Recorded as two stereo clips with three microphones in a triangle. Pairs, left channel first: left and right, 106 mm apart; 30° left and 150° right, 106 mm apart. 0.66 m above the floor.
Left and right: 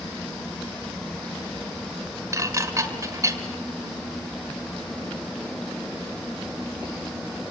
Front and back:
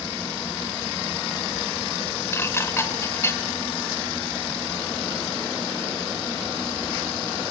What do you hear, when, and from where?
2.3 s dishes clattering: 35° right, 1.7 m